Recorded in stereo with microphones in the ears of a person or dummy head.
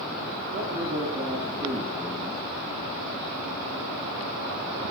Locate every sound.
0.5 s a man speaking: 35° right (ahead or behind), 3.5 m; by 2.4 s 10° left (ahead or behind), 1.4 m